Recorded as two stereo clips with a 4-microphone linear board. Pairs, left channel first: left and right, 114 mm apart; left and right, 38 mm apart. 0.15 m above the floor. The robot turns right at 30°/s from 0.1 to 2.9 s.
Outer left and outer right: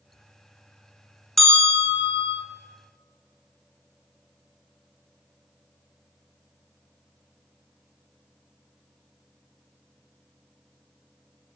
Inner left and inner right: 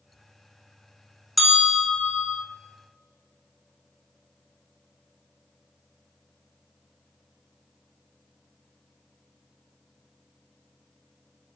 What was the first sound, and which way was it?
A bell, 5° left (ahead or behind).